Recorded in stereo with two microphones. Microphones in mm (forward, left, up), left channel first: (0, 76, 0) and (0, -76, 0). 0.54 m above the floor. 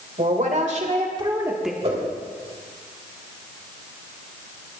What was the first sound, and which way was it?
A woman speaking, 60° right (ahead or behind).